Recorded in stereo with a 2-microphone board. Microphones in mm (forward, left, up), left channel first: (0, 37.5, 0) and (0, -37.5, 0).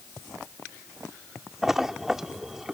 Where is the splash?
5° right (ahead or behind).